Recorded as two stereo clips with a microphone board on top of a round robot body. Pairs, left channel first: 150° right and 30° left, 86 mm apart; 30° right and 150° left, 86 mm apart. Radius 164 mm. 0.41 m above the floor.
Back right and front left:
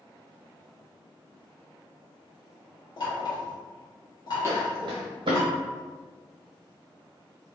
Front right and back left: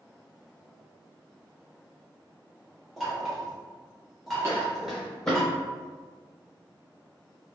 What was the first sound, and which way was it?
Knocking, 120° right.